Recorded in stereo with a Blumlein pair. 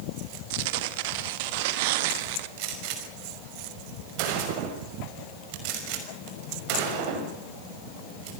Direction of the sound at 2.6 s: 45° right.